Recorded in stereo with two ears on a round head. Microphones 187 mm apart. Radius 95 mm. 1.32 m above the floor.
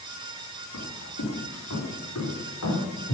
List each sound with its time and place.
0.7 s footsteps: 75° left (ahead or behind), 5 m; by 3.1 s 80° left, 6.5 m